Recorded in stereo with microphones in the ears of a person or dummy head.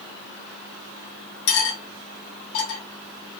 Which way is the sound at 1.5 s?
65° left (ahead or behind).